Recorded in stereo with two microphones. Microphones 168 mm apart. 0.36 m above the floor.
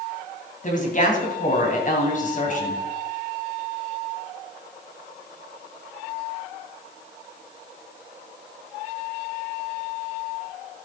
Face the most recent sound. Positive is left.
turn(degrees=50)  # may be behind; listen again after turning